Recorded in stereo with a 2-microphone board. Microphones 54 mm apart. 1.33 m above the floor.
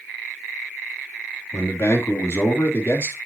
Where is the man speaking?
60° left (ahead or behind), 3 m; by 3.2 s 45° left (ahead or behind), 3 m.